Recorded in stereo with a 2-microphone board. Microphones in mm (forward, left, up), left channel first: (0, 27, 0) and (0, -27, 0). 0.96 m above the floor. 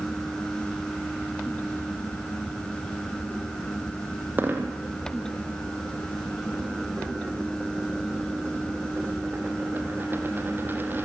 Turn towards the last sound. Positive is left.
turn(degrees=-35)  # may be behind; listen again after turning